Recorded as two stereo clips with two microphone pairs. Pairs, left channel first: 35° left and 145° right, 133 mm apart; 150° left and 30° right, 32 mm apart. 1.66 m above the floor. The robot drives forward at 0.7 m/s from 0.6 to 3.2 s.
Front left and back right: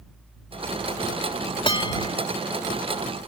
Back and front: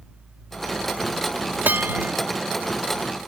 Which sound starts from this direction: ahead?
A bell, at 1.6 s.